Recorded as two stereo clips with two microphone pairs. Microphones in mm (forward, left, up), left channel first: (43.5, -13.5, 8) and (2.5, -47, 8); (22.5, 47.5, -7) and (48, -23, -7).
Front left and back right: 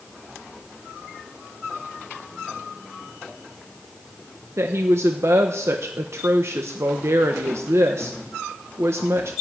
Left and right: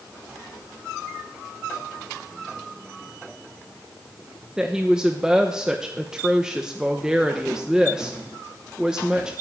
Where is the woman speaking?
150° right, 1.0 m.